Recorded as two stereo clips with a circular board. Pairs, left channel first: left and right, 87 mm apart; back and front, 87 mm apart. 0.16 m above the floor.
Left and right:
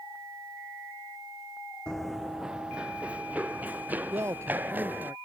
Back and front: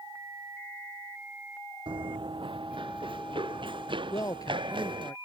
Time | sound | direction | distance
1.9 | running footsteps | 10° left | ?
4.1 | a man speaking | 140° right | ?